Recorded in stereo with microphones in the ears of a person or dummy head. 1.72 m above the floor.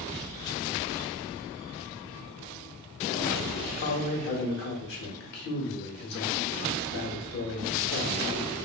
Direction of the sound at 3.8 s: 55° left (ahead or behind).